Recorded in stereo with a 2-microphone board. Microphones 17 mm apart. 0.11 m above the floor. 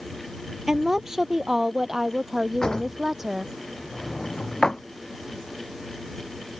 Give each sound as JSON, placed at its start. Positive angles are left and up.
{"t": 0.7, "sound": "a woman speaking", "side_deg": -30}
{"t": 2.6, "sound": "a drawer", "side_deg": 55}